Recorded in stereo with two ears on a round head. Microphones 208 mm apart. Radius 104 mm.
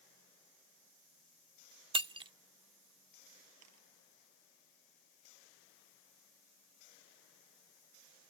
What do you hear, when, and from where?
1.9 s breaking glass: 20° right (ahead or behind)
3.6 s a camera shutter: 75° right (ahead or behind)